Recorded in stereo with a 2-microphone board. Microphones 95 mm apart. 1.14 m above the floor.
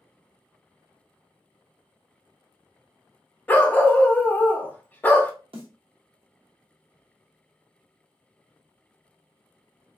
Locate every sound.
3.5 s a dog barking: 20° left (ahead or behind), 0.6 m
5.5 s a snare drum: 80° right, 1.0 m